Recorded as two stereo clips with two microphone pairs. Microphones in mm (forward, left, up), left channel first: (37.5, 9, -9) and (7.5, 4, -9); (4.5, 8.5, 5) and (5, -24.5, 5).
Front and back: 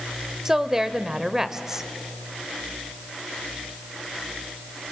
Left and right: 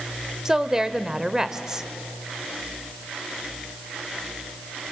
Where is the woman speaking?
120° right, 0.9 m.